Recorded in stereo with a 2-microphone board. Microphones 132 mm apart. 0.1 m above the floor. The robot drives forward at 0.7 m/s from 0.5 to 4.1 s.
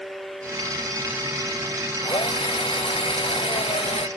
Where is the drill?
40° left (ahead or behind); by 4.1 s 45° left (ahead or behind).